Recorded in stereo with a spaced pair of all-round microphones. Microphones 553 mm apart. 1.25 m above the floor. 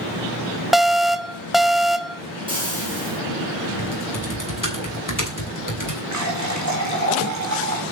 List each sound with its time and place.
0.7 s an alarm: centre (ahead or behind), 0.6 m
2.5 s frying: 10° right (ahead or behind), 5.5 m
3.8 s typing on a keyboard: 35° left (ahead or behind), 3 m
6.1 s a running tap: 30° right (ahead or behind), 3 m